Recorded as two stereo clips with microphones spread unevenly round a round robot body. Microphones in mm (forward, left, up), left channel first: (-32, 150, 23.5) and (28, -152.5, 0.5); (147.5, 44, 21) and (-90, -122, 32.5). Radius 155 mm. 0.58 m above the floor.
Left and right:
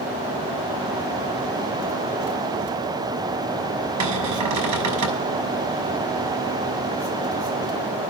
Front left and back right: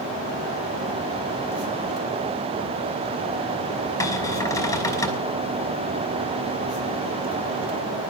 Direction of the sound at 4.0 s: 45° right.